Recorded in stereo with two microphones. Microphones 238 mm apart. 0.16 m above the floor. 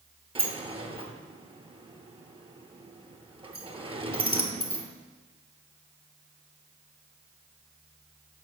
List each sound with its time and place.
0.3 s a sliding door: 20° right (ahead or behind), 0.8 m